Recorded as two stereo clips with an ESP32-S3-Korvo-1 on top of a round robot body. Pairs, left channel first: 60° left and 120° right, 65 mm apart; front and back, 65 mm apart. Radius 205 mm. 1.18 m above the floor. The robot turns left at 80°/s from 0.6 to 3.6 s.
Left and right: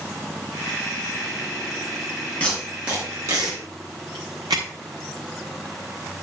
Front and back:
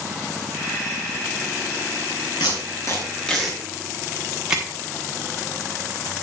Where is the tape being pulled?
10° right, 1.0 m; by 4.6 s 105° right, 1.0 m.